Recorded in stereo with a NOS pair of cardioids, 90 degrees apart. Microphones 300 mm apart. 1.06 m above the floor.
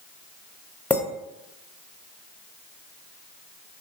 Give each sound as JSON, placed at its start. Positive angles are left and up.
{"t": 0.9, "sound": "a clink", "azimuth_deg": 5, "distance_m": 0.5}